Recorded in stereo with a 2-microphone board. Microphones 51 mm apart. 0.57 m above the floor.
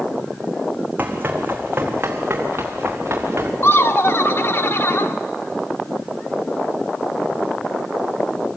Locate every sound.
1.0 s running footsteps: 35° right (ahead or behind), 2 m; by 3.5 s 55° right (ahead or behind), 3.5 m
3.6 s laughter: 50° left (ahead or behind), 0.9 m